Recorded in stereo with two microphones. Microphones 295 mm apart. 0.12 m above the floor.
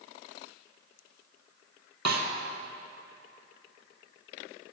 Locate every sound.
2.0 s a snare drum: 65° right (ahead or behind), 0.9 m